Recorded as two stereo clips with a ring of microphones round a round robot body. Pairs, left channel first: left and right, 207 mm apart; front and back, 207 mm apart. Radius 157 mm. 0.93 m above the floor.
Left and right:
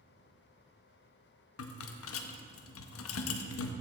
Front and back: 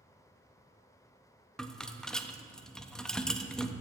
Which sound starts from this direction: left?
A rattle, at 1.6 s.